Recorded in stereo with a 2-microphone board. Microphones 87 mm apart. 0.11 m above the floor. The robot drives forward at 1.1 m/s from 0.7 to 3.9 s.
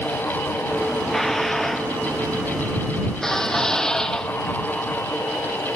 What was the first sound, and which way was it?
Dishes clattering, 5° left (ahead or behind).